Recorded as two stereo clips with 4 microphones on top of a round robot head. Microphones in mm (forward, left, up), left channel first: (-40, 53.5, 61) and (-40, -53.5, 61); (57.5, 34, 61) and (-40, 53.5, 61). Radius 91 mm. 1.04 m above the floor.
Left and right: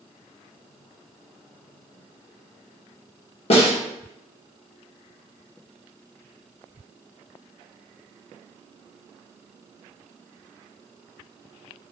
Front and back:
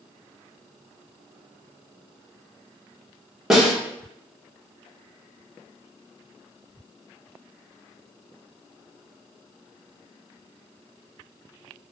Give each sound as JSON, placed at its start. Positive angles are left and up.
{"t": 3.5, "sound": "a snare drum", "azimuth_deg": 85, "distance_m": 1.5}